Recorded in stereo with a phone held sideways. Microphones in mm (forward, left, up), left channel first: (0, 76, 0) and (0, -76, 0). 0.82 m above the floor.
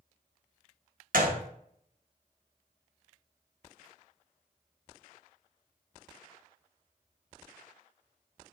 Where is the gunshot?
65° right (ahead or behind), 0.7 m.